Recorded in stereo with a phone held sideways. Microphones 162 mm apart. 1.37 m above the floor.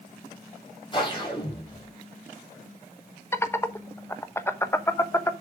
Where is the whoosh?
30° left (ahead or behind), 5 m.